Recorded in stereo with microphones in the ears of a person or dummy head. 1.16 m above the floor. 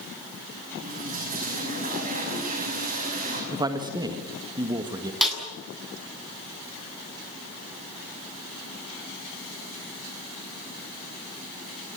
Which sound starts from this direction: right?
A toilet flushing, at 0.8 s.